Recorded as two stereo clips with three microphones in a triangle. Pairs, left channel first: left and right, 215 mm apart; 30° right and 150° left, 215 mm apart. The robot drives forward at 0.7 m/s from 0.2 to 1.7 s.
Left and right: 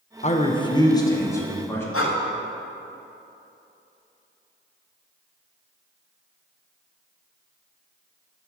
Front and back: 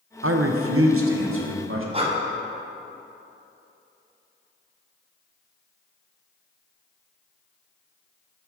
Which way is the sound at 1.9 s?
90° left.